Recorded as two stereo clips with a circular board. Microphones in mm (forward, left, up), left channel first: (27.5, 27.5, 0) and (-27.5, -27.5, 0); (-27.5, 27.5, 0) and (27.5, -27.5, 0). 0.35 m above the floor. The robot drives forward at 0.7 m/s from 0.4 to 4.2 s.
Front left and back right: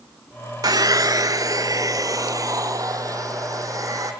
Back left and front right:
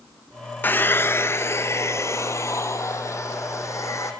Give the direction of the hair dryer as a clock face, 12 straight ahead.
5 o'clock.